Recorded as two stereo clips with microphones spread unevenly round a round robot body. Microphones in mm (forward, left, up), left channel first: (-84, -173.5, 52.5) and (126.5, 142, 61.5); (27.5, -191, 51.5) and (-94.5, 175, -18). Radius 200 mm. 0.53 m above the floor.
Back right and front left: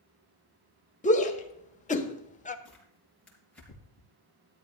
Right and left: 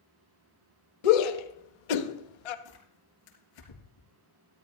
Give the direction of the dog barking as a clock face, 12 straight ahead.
I don't hear a dog barking.